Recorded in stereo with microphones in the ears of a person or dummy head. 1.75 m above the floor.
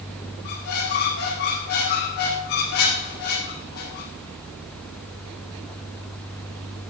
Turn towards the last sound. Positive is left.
turn(degrees=50)  # may be behind; listen again after turning